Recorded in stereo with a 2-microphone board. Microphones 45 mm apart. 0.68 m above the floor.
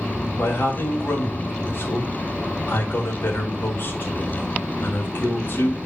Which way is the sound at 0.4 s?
55° left (ahead or behind).